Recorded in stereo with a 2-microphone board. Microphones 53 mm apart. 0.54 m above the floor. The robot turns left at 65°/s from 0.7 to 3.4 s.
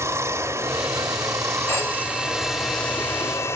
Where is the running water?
60° right, 0.7 m; by 3.5 s 125° left, 0.7 m.